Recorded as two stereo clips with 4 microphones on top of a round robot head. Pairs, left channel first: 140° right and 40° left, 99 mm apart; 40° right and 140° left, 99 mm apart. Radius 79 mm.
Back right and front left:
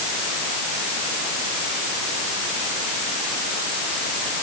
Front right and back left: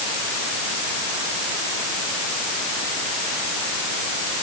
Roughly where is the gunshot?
I don't hear a gunshot.